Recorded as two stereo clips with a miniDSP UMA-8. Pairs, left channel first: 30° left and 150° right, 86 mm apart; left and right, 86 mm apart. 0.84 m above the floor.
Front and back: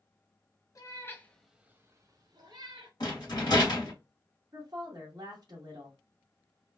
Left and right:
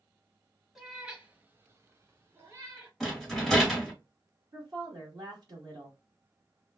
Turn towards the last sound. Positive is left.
turn(degrees=-120)